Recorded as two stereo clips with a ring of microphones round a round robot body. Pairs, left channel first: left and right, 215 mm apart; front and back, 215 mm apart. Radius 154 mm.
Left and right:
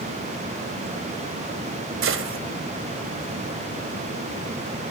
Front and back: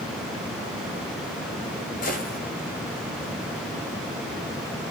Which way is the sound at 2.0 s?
65° right.